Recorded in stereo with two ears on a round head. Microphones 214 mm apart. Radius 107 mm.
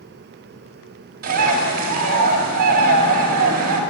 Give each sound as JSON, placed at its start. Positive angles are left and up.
{"t": 1.2, "sound": "a bird", "side_deg": -40, "distance_m": 4.0}